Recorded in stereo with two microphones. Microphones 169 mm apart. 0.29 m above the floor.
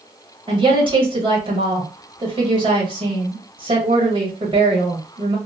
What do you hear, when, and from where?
0.5 s a woman speaking: 30° right (ahead or behind), 1.2 m